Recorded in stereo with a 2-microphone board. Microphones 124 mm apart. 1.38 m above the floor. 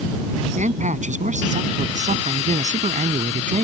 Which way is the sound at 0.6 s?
75° right (ahead or behind).